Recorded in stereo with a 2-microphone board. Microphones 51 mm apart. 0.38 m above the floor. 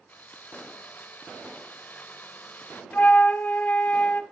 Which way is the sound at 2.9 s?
35° left (ahead or behind).